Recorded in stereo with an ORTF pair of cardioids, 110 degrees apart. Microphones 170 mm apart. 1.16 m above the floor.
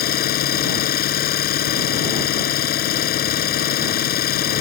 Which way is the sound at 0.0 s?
65° left.